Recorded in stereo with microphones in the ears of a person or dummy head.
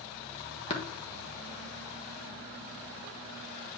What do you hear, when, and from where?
0.7 s tapping: 35° left (ahead or behind), 1.2 m